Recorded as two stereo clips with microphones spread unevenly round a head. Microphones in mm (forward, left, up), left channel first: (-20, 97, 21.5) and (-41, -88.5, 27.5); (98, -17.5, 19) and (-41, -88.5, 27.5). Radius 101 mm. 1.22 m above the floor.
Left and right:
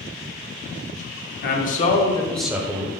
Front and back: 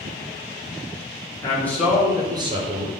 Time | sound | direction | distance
1.4 | a man speaking | 95° left | 0.9 m